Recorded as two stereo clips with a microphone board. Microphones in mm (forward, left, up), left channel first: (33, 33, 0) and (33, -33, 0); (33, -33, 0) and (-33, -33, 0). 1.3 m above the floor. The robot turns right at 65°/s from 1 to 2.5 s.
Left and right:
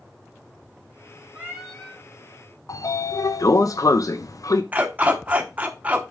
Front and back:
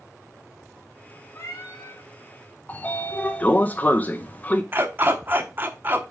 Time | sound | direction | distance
1.4 | a cat meowing | 25° right | 2.5 m
2.7 | a sliding door | 60° left | 0.6 m
4.7 | a dog barking | 145° right | 1.0 m